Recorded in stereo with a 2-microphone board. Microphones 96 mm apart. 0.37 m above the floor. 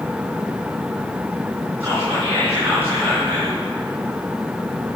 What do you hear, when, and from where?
1.8 s whispering: 25° right (ahead or behind), 4.5 m